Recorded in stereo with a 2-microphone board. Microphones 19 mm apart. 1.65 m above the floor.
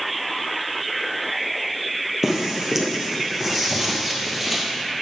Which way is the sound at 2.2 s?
20° right (ahead or behind).